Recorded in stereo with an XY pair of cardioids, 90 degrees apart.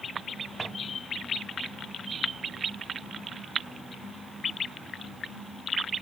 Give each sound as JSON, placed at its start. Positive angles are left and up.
{"t": 0.6, "sound": "a drawer", "azimuth_deg": -5, "distance_m": 3.0}